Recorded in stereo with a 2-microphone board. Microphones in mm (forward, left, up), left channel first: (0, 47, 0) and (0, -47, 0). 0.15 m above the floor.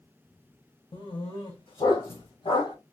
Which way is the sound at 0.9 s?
70° left (ahead or behind).